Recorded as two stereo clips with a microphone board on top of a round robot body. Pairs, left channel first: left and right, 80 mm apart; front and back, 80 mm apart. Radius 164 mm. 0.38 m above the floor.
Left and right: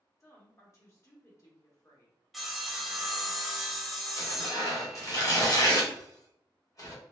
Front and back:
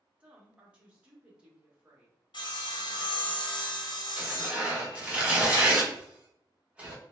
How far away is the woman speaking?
About 1.3 m.